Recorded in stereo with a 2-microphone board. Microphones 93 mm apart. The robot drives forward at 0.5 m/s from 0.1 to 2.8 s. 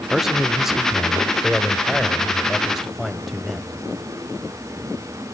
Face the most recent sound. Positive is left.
turn(degrees=0)  # may be behind; listen again after turning